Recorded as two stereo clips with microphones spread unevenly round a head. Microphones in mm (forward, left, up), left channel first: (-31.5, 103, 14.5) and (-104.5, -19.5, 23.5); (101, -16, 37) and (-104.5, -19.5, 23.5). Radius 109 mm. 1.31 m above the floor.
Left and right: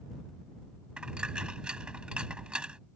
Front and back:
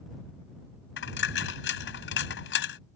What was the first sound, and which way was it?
A dropped coin, 35° right.